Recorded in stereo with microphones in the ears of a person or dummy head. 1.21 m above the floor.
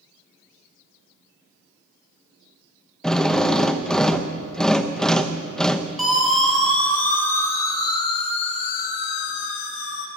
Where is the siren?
Centre (ahead or behind), 5 m; by 10.1 s 85° left, 3 m.